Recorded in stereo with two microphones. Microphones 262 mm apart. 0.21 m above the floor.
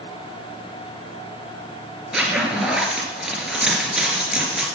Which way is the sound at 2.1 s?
5° right (ahead or behind).